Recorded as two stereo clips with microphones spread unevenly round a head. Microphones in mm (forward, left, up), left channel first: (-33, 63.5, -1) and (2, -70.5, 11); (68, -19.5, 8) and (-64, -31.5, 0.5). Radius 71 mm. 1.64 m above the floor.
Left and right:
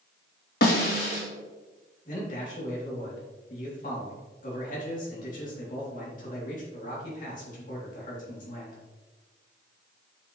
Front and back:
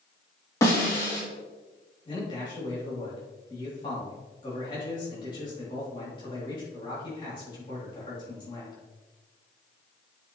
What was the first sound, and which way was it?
A snare drum, 75° left.